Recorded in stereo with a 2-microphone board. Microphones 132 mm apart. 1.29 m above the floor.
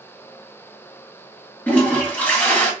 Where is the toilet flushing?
10° left (ahead or behind), 1.3 m.